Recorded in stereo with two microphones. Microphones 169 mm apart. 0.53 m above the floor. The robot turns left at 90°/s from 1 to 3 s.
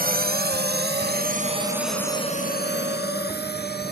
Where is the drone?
60° right (ahead or behind); by 3.9 s 70° left (ahead or behind).